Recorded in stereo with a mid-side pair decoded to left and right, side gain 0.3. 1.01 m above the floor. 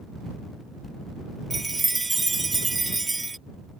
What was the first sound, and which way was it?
A chime, 35° right.